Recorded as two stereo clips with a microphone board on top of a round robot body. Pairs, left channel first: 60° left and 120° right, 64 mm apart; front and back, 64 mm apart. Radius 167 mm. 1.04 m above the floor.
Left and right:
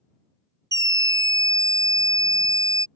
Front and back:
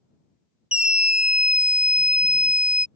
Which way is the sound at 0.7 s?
105° right.